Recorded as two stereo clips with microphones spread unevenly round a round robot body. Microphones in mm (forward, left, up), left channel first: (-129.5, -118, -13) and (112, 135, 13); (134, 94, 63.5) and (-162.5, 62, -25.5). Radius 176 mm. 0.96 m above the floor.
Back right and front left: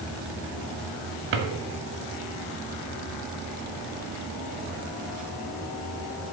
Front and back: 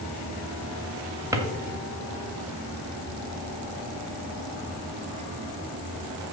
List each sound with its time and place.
1.3 s a drawer: 100° left, 2 m